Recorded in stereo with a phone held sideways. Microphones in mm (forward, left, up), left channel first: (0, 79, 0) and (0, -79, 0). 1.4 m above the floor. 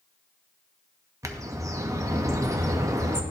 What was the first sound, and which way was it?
A bird, 20° right (ahead or behind).